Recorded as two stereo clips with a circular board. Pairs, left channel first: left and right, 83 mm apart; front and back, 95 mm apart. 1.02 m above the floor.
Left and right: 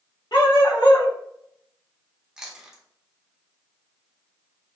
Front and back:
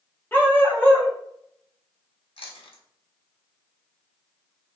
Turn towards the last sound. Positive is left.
turn(degrees=-5)